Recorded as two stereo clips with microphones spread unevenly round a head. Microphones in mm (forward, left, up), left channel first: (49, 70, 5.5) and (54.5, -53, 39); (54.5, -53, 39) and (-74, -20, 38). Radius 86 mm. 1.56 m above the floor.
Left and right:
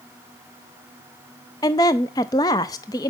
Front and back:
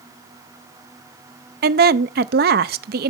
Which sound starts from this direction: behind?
A woman speaking, at 1.6 s.